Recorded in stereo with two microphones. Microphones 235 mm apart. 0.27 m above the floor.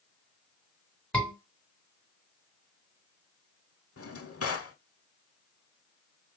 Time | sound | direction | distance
1.1 | a scream | 5° left (ahead or behind) | 3 m
4.0 | a drawer | 85° left | 0.5 m